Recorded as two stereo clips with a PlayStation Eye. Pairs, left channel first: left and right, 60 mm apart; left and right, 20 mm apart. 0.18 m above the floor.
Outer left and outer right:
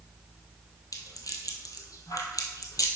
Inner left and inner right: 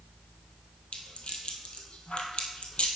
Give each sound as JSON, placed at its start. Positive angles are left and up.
{"t": 0.9, "sound": "a rattle", "side_deg": 75, "distance_m": 1.2}